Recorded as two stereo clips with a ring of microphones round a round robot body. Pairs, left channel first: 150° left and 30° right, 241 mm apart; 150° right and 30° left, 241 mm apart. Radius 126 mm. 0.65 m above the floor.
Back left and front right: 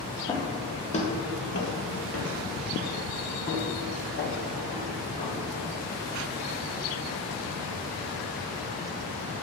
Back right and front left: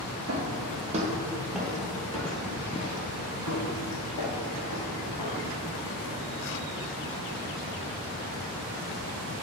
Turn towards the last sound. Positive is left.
turn(degrees=-155)